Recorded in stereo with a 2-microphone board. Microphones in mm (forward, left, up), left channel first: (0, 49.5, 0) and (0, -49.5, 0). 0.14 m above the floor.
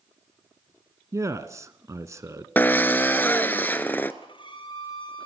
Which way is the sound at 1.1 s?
30° right (ahead or behind).